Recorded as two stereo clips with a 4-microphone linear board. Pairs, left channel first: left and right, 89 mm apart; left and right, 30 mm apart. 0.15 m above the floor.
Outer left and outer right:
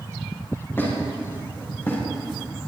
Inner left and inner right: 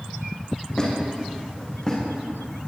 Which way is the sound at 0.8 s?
25° left (ahead or behind).